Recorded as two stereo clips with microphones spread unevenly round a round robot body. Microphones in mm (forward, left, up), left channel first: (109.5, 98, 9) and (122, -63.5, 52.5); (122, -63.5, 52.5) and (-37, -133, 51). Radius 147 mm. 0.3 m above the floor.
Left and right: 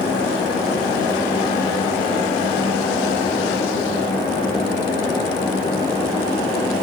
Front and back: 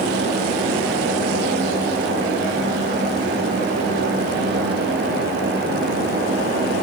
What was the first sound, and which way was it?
Only background noise.